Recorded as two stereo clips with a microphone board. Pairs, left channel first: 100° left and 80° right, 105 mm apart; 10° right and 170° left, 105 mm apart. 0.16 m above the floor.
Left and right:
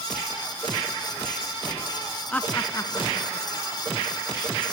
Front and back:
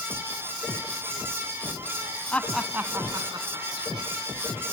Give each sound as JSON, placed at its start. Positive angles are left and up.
{"t": 2.3, "sound": "laughter", "azimuth_deg": 40, "distance_m": 1.2}